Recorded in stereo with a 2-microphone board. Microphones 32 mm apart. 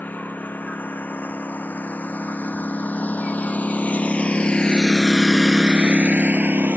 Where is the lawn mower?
70° left (ahead or behind); by 6.8 s 70° right (ahead or behind).